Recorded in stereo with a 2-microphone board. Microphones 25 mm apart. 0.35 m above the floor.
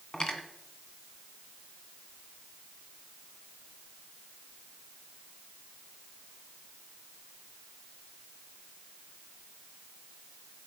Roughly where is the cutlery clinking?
Left.